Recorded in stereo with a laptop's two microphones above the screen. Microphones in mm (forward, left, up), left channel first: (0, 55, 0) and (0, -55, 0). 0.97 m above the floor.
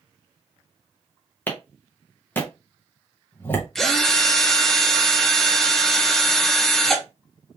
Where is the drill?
5° left (ahead or behind), 0.5 m.